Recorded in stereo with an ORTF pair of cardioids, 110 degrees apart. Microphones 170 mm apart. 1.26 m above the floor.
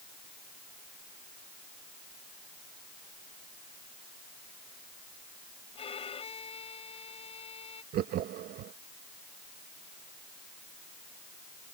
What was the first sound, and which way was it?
A violin, 35° left.